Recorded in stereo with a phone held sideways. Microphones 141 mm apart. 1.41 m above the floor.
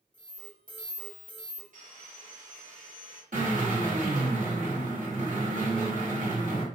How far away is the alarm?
About 1.6 m.